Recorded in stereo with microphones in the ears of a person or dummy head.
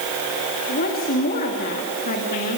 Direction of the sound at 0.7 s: 45° left (ahead or behind).